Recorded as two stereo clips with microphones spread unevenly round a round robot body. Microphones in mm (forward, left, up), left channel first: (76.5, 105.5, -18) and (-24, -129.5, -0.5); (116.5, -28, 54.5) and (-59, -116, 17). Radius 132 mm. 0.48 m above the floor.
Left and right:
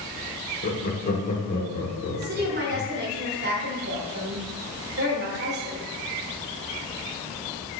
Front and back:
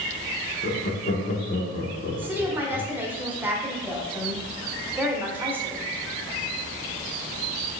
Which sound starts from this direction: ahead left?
Laughter, at 0.6 s.